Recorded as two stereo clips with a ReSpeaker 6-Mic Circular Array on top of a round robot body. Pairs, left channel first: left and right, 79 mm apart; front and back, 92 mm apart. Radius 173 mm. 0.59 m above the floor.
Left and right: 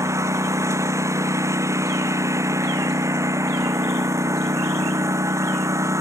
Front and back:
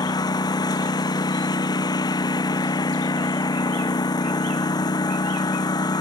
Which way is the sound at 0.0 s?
40° right.